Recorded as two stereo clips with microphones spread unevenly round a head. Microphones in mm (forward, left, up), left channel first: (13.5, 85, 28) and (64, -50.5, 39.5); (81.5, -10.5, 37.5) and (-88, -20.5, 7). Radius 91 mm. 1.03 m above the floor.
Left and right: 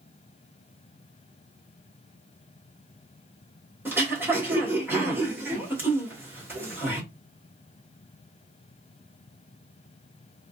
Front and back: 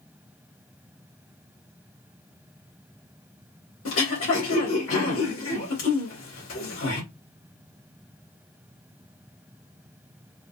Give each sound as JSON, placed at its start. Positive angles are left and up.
{"t": 3.9, "sound": "throat clearing", "azimuth_deg": 5, "distance_m": 2.0}